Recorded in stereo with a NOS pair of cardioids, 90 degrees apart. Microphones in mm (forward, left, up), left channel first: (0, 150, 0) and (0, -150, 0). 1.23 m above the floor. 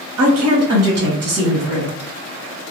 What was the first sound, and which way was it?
A woman speaking, 65° right.